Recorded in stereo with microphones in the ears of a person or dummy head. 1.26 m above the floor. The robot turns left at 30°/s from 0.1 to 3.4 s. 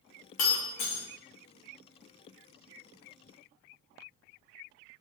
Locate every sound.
0.4 s breaking glass: 45° left (ahead or behind), 0.9 m; by 1.0 s 55° left (ahead or behind), 0.9 m